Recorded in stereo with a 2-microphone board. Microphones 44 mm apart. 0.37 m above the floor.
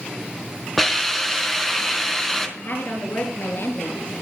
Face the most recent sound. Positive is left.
turn(degrees=50)  # may be behind; listen again after turning